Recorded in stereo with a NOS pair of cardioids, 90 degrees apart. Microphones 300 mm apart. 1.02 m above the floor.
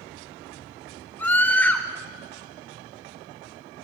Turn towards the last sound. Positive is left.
turn(degrees=5)